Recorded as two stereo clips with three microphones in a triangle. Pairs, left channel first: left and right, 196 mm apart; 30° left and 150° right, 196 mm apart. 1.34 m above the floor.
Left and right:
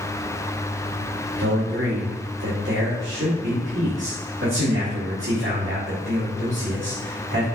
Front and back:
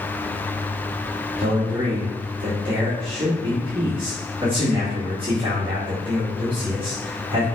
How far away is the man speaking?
About 2.0 m.